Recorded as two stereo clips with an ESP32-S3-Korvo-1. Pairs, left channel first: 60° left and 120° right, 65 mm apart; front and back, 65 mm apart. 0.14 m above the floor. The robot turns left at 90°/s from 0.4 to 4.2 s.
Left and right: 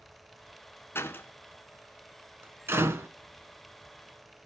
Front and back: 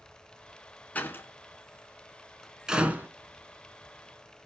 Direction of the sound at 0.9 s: 50° left.